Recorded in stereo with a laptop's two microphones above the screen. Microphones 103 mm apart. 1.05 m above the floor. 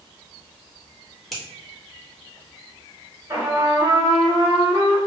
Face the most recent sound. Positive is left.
turn(degrees=-30)  # may be behind; listen again after turning